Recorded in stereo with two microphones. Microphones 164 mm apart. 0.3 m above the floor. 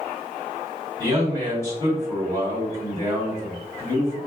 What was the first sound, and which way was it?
A man speaking, 20° left (ahead or behind).